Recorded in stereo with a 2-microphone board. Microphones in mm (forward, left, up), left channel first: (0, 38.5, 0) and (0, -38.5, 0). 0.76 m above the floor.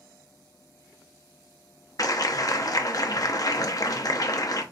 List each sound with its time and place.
2.0 s a clap: 50° left (ahead or behind), 0.5 m